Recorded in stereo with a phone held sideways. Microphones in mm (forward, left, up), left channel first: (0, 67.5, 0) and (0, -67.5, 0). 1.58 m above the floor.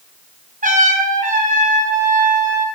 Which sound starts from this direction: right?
A trumpet, at 0.6 s.